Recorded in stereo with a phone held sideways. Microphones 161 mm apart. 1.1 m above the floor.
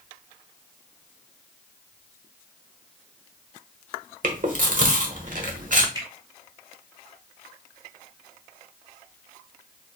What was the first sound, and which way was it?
Chewing, 55° right (ahead or behind).